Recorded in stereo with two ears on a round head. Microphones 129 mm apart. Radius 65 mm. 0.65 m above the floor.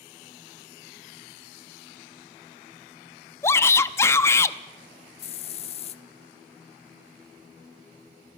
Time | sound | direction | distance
3.4 | a shout | 20° left (ahead or behind) | 0.7 m
5.2 | a hiss | 50° left (ahead or behind) | 0.7 m